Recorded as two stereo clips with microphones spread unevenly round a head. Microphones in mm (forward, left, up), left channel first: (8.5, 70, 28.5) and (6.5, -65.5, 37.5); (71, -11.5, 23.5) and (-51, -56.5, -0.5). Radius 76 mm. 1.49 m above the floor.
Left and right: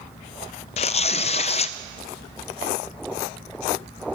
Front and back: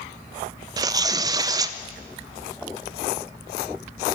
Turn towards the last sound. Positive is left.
turn(degrees=130)